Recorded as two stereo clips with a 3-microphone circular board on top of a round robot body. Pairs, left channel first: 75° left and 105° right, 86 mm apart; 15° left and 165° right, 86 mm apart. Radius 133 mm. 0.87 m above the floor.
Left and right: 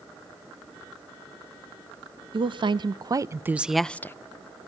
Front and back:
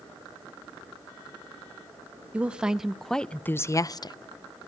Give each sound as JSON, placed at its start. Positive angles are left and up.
{"t": 2.3, "sound": "a woman speaking", "azimuth_deg": -90, "distance_m": 0.9}